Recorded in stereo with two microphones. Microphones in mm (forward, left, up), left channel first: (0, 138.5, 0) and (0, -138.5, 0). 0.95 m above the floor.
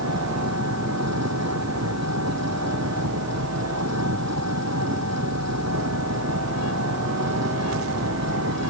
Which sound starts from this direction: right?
An engine running, at 0.0 s.